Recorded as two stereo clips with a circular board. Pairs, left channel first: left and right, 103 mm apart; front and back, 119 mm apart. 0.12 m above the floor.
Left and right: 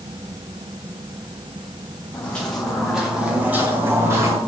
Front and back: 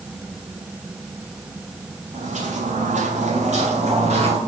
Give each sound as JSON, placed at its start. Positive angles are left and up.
{"t": 2.1, "sound": "footsteps", "azimuth_deg": 165, "distance_m": 2.0}